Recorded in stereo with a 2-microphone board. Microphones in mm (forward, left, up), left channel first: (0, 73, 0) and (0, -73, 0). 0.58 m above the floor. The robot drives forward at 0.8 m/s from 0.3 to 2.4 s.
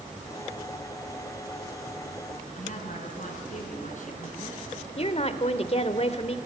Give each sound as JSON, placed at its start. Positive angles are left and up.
{"t": 2.5, "sound": "a woman speaking", "side_deg": 60, "distance_m": 7.0}
{"t": 5.0, "sound": "a woman speaking", "side_deg": 45, "distance_m": 1.7}